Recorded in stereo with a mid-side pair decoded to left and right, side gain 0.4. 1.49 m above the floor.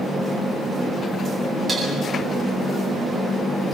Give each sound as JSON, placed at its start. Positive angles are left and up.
{"t": 1.7, "sound": "dishes clattering", "azimuth_deg": -35, "distance_m": 8.5}